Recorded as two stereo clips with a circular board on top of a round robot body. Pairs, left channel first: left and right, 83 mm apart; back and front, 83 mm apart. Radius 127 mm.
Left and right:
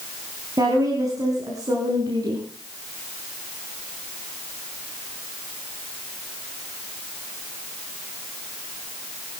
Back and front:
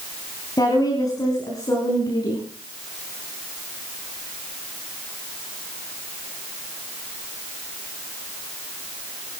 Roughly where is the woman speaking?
Behind right.